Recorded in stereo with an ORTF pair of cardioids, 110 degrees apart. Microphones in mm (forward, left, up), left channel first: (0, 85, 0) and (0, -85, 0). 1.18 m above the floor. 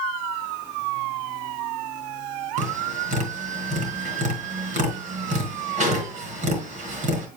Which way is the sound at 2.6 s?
55° right.